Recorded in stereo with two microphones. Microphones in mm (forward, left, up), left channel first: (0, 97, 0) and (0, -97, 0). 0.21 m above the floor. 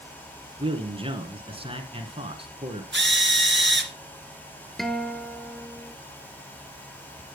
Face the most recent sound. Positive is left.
turn(degrees=0)  # may be behind; listen again after turning